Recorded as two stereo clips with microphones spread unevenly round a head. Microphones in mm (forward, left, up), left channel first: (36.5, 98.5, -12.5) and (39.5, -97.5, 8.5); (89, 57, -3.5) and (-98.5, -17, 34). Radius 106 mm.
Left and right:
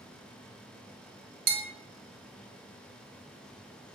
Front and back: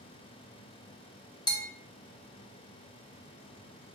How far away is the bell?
About 1.3 m.